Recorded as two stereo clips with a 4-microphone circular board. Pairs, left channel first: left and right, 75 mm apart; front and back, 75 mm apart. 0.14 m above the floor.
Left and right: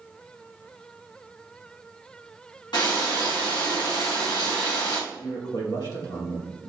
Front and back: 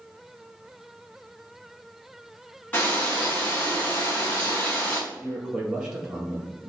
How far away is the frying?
About 2.5 m.